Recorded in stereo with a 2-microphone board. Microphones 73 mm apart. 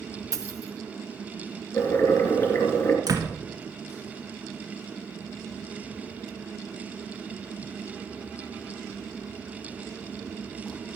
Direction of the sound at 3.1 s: 55° right (ahead or behind).